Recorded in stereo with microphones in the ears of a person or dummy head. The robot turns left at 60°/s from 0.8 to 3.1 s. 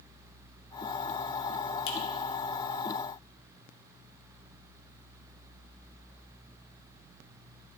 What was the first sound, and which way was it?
A finger snap, 75° left (ahead or behind).